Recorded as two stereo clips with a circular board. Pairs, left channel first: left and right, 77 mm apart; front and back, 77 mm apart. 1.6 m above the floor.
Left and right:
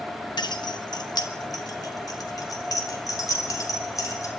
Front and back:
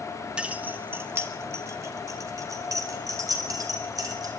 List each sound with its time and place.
0.4 s keys jangling: 105° left, 1.4 m; by 4.3 s 140° left, 5.5 m